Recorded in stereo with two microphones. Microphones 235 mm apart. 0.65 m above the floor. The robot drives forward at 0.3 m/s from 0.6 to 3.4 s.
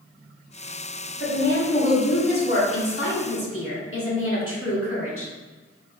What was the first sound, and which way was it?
A woman speaking, 50° left (ahead or behind).